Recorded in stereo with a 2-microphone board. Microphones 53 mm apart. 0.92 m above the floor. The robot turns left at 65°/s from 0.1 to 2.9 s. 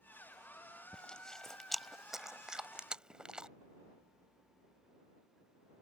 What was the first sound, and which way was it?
Chewing, 15° left (ahead or behind).